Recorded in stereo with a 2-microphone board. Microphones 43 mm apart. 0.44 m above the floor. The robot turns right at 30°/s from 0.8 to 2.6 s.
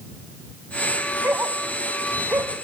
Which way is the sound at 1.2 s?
60° right (ahead or behind).